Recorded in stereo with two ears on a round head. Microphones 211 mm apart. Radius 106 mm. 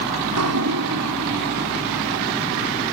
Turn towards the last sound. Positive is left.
turn(degrees=-75)  # may be behind; listen again after turning